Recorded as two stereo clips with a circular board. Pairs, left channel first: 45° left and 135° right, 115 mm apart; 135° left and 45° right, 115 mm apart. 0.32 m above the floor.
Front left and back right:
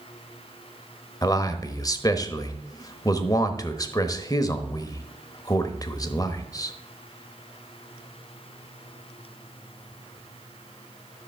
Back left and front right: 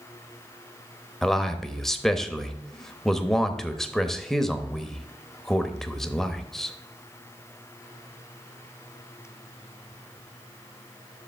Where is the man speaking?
50° left, 0.9 m.